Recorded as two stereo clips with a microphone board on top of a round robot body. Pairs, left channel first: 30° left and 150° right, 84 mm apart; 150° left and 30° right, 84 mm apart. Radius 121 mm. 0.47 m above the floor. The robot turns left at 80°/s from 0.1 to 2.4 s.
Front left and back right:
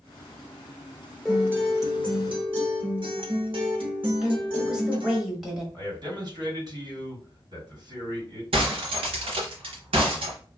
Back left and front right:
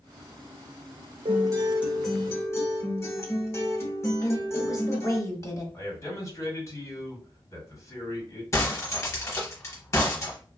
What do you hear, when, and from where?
1.2 s a guitar: 60° right, 1.0 m; by 5.2 s 150° right, 1.0 m
4.2 s a woman speaking: 130° left, 1.5 m
5.7 s a man speaking: 160° right, 1.7 m
8.5 s breaking glass: 150° right, 0.8 m